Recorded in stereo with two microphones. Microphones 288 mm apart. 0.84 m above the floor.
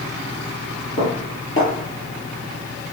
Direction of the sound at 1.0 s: 45° left (ahead or behind).